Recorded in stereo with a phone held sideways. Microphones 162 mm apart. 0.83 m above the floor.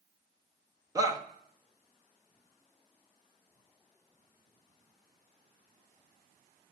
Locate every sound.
0.9 s a shout: 20° right (ahead or behind), 0.9 m